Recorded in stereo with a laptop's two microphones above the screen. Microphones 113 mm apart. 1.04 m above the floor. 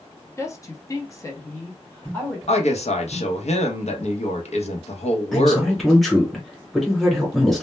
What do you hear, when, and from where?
0.4 s a woman speaking: 25° left (ahead or behind), 0.7 m; by 2.4 s 15° left (ahead or behind), 1.0 m
2.5 s a woman speaking: 70° left (ahead or behind), 0.7 m
5.3 s a man speaking: centre (ahead or behind), 0.9 m